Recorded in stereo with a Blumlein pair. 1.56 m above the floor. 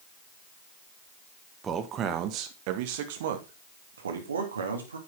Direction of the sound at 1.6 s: 20° right.